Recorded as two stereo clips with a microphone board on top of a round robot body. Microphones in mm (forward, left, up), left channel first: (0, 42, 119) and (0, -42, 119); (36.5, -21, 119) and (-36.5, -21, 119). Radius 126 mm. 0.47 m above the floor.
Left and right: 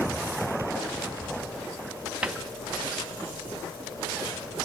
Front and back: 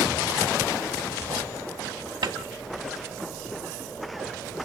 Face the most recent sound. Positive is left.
turn(degrees=-170)